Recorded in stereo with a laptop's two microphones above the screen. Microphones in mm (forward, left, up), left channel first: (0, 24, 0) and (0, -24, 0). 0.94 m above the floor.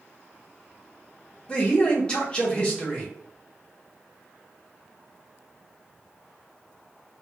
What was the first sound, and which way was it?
A man speaking, 20° left (ahead or behind).